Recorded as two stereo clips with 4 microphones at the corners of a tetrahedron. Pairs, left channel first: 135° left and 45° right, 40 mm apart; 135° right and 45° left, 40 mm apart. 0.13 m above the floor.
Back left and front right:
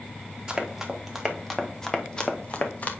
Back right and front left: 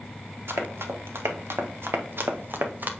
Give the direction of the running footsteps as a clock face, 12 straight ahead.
11 o'clock.